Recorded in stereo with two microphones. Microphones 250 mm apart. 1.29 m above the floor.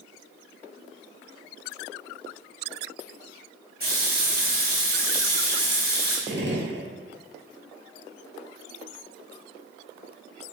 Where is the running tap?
40° right (ahead or behind), 1.3 m.